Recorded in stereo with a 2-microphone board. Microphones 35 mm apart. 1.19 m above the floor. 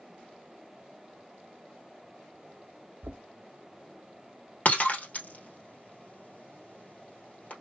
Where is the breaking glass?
50° left (ahead or behind), 1.9 m.